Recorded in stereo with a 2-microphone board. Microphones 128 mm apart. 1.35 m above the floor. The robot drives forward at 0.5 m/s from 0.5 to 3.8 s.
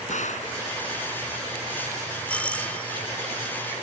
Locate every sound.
0.1 s a gunshot: 70° left (ahead or behind)
2.3 s a doorbell: 10° left (ahead or behind)